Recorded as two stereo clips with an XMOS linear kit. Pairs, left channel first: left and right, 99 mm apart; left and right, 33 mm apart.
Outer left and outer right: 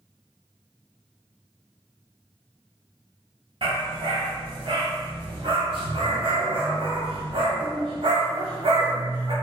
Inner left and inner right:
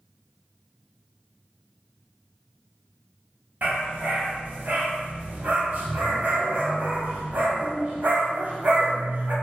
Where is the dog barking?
65° right (ahead or behind), 0.9 m.